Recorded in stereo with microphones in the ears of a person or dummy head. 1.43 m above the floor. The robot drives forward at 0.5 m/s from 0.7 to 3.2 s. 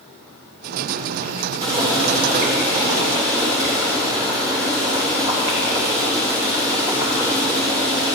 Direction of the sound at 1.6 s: 25° right (ahead or behind).